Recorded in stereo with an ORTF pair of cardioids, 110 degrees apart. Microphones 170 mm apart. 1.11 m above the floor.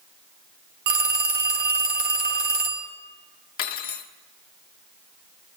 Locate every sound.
0.9 s a phone ringing: 70° right, 1.1 m
3.6 s cutlery clinking: 65° left, 1.3 m